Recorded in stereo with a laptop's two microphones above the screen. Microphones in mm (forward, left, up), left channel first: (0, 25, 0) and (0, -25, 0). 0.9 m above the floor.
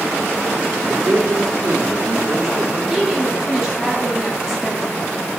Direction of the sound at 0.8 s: 75° right (ahead or behind).